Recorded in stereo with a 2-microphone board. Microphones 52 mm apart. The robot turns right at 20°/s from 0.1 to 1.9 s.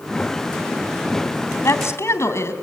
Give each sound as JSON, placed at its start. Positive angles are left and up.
{"t": 1.6, "sound": "a woman speaking", "side_deg": 65, "distance_m": 3.0}